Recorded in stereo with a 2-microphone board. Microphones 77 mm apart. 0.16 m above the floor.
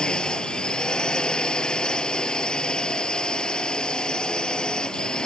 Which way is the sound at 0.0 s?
10° left (ahead or behind).